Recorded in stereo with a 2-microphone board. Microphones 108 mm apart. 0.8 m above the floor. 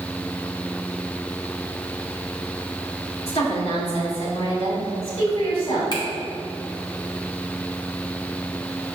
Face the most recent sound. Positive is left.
turn(degrees=45)  # may be behind; listen again after turning